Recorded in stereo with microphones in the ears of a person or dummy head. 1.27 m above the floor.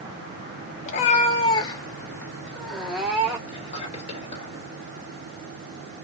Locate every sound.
0.8 s a cat meowing: 45° left (ahead or behind), 1.2 m; by 3.4 s 10° right (ahead or behind), 1.5 m
3.5 s whispering: 35° left (ahead or behind), 2.5 m